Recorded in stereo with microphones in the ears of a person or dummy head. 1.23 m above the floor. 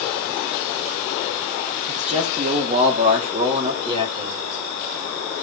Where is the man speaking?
35° right (ahead or behind), 3 m; by 4.4 s 30° right (ahead or behind), 4.5 m.